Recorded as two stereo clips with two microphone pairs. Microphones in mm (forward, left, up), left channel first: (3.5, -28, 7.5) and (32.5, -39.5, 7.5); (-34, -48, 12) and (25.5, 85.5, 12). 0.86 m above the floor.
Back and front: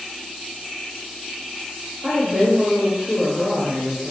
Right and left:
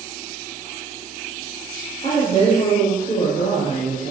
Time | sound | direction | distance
2.0 | a woman speaking | 65° right | 4.5 m